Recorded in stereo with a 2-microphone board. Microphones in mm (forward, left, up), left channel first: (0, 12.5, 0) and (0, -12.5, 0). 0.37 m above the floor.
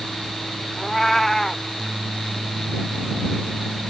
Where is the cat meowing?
10° left (ahead or behind).